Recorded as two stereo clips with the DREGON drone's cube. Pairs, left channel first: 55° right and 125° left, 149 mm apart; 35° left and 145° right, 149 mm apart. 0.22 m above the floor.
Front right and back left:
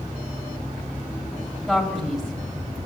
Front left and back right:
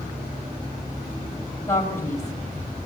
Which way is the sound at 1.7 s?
40° left.